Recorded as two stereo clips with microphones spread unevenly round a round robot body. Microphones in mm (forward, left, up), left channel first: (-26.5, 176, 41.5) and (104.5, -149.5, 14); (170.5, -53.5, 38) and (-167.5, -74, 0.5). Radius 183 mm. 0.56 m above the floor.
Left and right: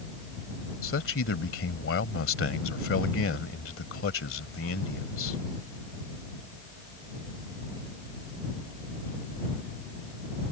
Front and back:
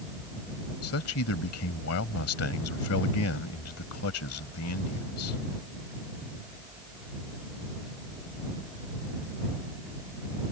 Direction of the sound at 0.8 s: 55° left.